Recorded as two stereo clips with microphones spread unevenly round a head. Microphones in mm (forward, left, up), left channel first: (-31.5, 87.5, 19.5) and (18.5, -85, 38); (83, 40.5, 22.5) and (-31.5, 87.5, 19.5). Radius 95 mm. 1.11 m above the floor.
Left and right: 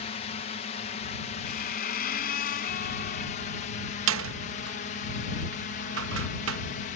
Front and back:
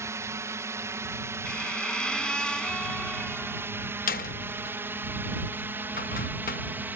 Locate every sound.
0.0 s a drone: 105° left; by 7.0 s 90° left
1.4 s a squeak: 60° left
4.1 s a door slam: 60° right